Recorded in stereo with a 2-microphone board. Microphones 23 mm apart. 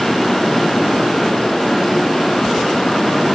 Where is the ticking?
I don't hear ticking.